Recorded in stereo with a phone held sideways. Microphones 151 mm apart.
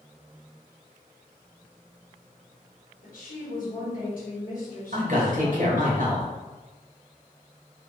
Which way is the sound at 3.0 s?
70° left (ahead or behind).